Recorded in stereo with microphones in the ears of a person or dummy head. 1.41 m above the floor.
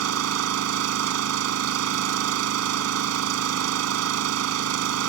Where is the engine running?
85° right.